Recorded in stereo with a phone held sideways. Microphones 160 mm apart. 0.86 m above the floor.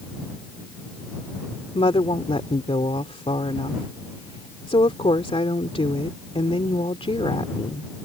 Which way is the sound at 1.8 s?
35° left (ahead or behind).